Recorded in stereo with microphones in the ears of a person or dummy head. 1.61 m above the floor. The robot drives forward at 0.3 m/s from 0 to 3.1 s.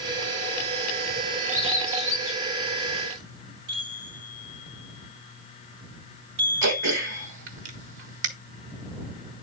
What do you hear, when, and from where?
1.5 s a bird: 40° right (ahead or behind), 4 m; by 3.2 s 35° right (ahead or behind), 4.5 m
3.7 s a chime: 70° right (ahead or behind), 3 m
6.6 s throat clearing: 70° right (ahead or behind), 1.3 m